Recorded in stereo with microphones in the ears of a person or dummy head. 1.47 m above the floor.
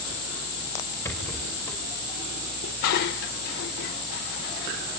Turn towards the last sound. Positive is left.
turn(degrees=40)  # may be behind; listen again after turning